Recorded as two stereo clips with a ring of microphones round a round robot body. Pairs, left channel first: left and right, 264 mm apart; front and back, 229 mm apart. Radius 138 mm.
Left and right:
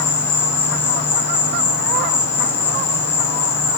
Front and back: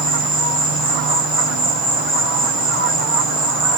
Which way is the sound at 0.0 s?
90° left.